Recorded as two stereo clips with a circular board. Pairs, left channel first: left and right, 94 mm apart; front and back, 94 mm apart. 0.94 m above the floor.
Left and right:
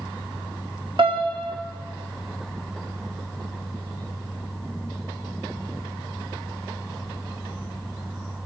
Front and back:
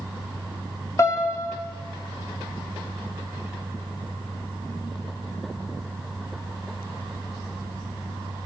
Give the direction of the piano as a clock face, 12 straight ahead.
2 o'clock.